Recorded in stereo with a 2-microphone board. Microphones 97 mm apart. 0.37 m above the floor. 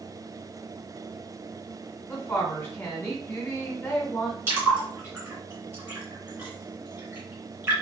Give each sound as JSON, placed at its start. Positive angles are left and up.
{"t": 2.1, "sound": "a woman speaking", "side_deg": 20, "distance_m": 1.5}
{"t": 4.5, "sound": "a splash", "side_deg": -25, "distance_m": 2.0}